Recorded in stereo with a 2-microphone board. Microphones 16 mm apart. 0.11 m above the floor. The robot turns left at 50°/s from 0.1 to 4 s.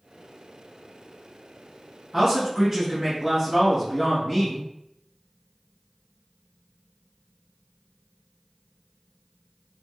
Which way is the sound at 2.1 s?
20° right (ahead or behind).